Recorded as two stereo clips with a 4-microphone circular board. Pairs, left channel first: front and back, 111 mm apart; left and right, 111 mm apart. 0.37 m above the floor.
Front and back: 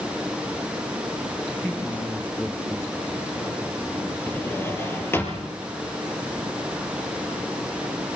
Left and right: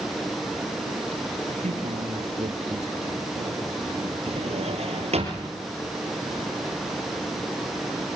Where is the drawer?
70° right, 4.5 m.